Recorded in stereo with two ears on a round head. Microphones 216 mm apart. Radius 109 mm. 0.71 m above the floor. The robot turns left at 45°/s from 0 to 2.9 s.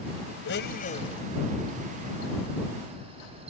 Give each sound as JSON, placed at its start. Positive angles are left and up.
{"t": 0.5, "sound": "a blender", "azimuth_deg": 50}